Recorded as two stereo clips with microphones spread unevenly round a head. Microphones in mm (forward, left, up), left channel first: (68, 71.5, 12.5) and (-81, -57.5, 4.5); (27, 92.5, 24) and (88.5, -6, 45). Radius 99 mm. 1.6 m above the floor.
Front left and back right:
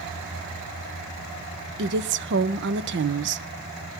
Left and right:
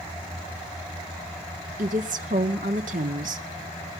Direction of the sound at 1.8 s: 100° right.